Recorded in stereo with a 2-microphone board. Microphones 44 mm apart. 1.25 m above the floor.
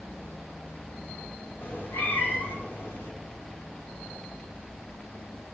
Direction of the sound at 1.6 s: 60° left (ahead or behind).